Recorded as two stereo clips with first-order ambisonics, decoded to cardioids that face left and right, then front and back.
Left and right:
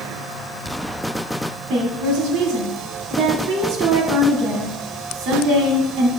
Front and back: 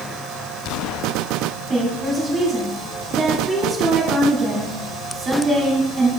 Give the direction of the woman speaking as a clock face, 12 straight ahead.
4 o'clock.